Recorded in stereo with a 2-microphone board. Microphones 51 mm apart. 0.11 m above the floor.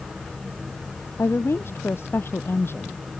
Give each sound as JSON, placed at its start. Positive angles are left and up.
{"t": 1.2, "sound": "a woman speaking", "side_deg": 50}